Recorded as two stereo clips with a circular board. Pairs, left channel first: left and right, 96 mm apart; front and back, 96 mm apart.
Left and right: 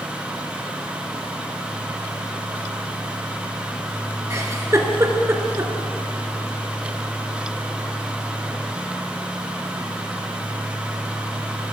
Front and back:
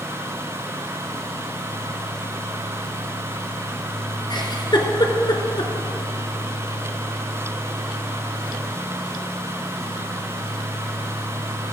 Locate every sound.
4.3 s a giggle: 35° right, 1.5 m